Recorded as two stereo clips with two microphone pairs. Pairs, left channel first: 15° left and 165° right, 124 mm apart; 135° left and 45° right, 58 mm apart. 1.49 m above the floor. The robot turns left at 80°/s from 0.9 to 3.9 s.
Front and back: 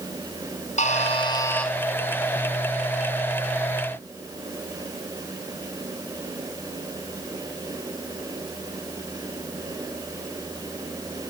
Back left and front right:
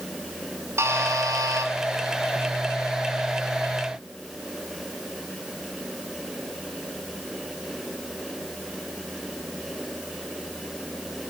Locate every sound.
0.8 s a buzzer: 10° right, 3.5 m; by 1.7 s 70° right, 3.5 m